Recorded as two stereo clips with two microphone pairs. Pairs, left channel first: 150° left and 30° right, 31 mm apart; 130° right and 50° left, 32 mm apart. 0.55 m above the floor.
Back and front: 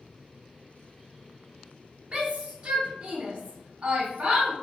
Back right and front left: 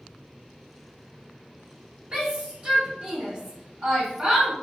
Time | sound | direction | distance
2.1 | a shout | 10° left | 0.9 m